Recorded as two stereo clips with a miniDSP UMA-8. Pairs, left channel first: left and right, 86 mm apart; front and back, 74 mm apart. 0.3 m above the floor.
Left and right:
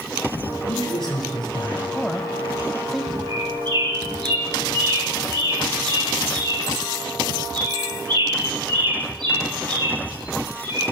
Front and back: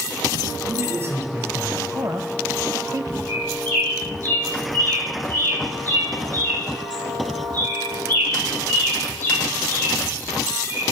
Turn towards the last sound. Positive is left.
turn(degrees=-65)